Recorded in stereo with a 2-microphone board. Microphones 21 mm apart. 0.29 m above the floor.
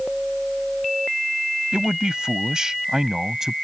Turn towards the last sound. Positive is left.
turn(degrees=-20)  # may be behind; listen again after turning